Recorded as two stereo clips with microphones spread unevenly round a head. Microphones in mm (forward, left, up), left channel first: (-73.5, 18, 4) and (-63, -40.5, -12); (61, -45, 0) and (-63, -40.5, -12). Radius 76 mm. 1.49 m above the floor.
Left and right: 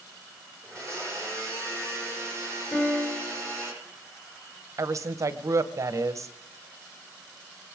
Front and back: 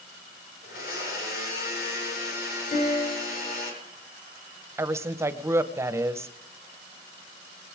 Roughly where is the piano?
Ahead left.